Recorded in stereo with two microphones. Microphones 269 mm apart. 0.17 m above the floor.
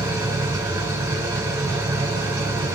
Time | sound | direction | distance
0.0 | an engine running | 10° right (ahead or behind) | 5.5 m